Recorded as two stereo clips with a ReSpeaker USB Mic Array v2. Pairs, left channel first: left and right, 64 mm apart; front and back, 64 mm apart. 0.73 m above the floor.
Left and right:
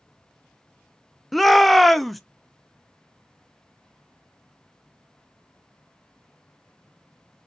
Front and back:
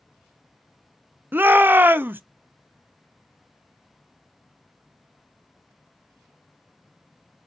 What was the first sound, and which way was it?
A shout, 175° left.